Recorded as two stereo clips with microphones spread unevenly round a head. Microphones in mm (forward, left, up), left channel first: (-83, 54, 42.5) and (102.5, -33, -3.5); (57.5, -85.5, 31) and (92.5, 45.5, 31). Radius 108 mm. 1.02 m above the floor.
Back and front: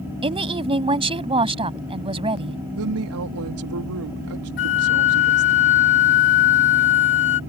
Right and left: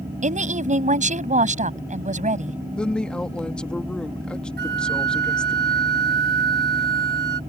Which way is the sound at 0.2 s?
45° left.